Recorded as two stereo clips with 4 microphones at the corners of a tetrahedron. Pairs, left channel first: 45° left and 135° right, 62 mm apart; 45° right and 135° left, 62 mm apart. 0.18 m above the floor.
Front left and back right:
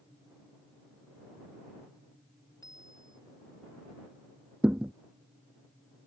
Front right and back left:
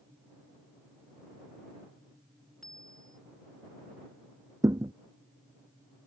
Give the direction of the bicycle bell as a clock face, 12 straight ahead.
11 o'clock.